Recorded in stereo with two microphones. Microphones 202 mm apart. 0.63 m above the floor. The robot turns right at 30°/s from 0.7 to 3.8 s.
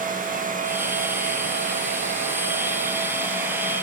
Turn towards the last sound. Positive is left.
No sound to turn to.